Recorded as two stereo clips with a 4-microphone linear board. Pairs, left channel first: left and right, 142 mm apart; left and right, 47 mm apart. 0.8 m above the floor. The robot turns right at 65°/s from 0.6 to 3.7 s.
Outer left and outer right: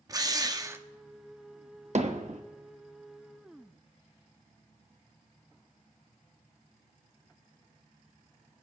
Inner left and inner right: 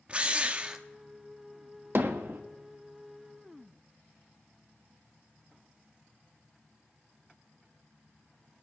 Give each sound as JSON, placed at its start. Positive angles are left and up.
{"t": 0.1, "sound": "a drill", "side_deg": -25, "distance_m": 0.8}
{"t": 1.9, "sound": "hammering", "side_deg": -55, "distance_m": 1.0}